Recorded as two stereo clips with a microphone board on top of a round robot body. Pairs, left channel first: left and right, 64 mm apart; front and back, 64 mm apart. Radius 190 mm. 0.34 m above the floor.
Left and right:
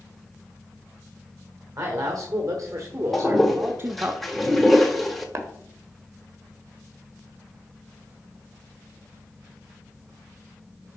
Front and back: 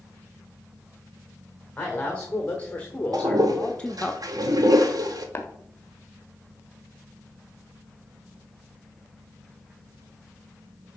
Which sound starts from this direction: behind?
A toilet flushing, at 3.1 s.